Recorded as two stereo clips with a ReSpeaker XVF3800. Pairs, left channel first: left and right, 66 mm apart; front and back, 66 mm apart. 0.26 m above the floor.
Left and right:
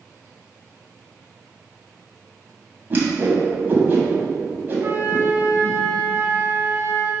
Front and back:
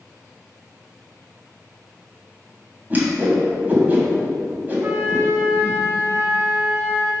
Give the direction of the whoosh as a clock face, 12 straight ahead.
4 o'clock.